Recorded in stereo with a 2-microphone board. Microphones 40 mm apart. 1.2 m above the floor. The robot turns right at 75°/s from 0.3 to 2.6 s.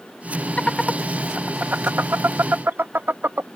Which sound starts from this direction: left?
Laughter, at 0.6 s.